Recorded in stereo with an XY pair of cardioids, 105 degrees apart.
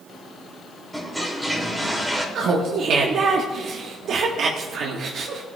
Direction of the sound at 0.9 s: Straight ahead.